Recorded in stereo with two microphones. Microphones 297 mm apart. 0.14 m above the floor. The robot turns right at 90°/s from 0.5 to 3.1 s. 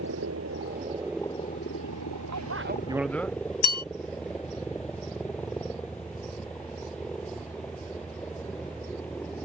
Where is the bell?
70° left (ahead or behind).